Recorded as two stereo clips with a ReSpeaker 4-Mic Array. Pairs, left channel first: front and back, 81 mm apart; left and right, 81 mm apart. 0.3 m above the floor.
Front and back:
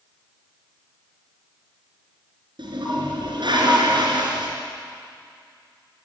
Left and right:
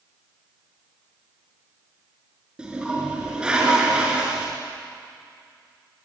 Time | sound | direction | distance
2.6 | a toilet flushing | 170° right | 5 m